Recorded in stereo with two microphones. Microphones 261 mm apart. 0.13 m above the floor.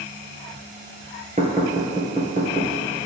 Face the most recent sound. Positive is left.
turn(degrees=-30)  # may be behind; listen again after turning